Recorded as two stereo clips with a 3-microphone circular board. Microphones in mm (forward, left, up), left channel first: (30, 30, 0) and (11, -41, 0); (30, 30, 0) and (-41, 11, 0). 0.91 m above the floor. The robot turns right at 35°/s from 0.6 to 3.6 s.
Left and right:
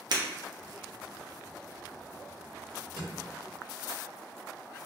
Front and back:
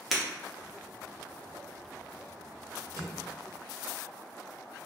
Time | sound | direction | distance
0.1 | breaking glass | 75° right | 0.6 m
3.0 | a drawer | 130° right | 1.0 m